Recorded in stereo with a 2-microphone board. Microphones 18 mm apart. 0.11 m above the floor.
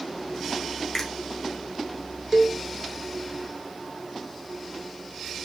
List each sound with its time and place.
0.9 s a finger snap: 20° left (ahead or behind), 1.3 m
2.3 s a cowbell: 25° right (ahead or behind), 0.7 m